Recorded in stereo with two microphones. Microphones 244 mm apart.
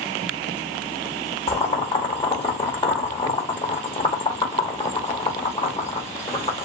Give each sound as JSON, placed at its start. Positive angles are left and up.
{"t": 1.5, "sound": "boiling", "side_deg": 20, "distance_m": 1.0}